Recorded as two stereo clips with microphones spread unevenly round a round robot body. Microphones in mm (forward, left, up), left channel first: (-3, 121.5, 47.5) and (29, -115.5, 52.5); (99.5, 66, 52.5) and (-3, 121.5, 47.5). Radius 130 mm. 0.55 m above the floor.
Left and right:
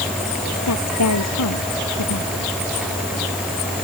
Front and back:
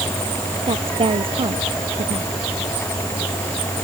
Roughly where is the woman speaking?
Behind left.